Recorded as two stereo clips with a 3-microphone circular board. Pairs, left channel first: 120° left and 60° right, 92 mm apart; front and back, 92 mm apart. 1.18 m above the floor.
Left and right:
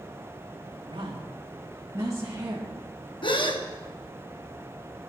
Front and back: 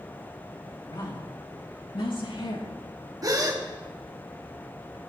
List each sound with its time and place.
0.9 s a woman speaking: 35° right, 1.5 m; by 2.7 s 5° left, 2 m
3.2 s a gasp: 135° left, 1.0 m